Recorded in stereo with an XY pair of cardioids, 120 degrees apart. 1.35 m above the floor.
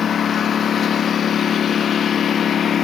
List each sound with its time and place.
0.0 s a lawn mower: 40° left